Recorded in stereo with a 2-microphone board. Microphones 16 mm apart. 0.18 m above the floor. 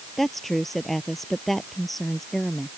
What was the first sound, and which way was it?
A woman speaking, 5° left (ahead or behind).